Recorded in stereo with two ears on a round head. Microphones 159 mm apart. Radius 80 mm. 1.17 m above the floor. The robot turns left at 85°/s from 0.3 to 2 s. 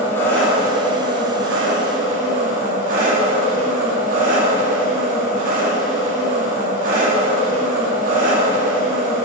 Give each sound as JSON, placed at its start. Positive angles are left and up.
{"t": 0.0, "sound": "an engine running", "azimuth_deg": 15, "distance_m": 2.5}